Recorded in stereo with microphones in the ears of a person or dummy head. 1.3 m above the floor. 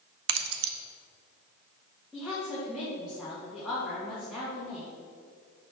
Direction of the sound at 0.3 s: 70° right (ahead or behind).